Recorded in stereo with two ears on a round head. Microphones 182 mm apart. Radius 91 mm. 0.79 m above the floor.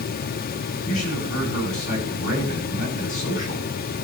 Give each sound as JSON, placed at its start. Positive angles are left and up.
{"t": 0.8, "sound": "a man speaking", "side_deg": 40, "distance_m": 8.0}